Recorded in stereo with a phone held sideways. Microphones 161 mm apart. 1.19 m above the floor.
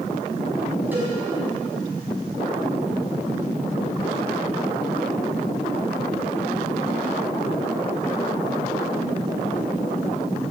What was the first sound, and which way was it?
A cowbell, 10° right (ahead or behind).